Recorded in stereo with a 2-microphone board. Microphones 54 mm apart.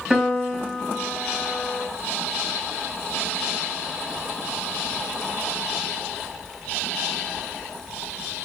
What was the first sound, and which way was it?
A piano, 10° right (ahead or behind).